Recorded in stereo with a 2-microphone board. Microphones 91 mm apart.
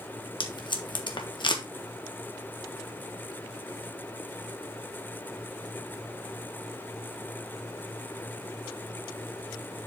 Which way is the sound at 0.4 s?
55° left (ahead or behind).